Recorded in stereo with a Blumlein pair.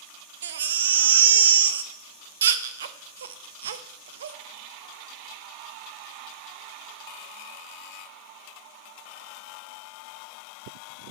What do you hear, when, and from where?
0.4 s a baby crying: 65° right, 0.6 m